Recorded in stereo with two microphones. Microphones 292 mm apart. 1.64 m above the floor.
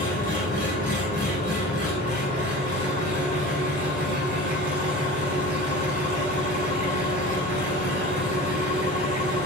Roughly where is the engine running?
Left.